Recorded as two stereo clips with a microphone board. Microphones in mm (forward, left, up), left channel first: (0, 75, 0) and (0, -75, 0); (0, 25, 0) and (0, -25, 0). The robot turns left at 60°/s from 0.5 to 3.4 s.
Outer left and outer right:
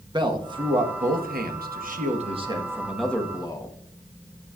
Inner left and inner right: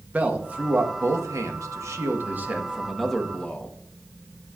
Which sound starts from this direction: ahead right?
A man speaking, at 0.1 s.